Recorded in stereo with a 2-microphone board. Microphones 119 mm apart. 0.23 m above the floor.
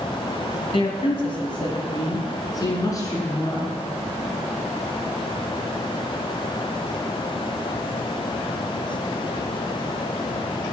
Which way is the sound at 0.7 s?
50° left (ahead or behind).